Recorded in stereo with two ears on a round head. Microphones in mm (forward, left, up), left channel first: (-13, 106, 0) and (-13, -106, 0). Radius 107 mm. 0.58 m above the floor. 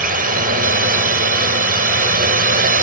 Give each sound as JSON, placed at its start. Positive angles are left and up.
{"t": 0.0, "sound": "a drone", "side_deg": -35}